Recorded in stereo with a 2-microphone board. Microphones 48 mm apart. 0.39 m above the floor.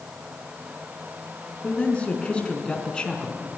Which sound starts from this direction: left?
A man speaking, at 1.6 s.